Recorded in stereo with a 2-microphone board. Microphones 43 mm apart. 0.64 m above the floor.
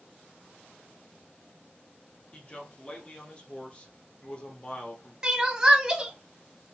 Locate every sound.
2.3 s a man speaking: 25° left (ahead or behind), 1.0 m
5.2 s crying: 15° right (ahead or behind), 0.8 m